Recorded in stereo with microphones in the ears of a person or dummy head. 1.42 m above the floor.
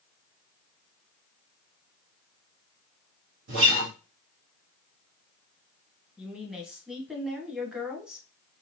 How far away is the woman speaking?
About 1.1 m.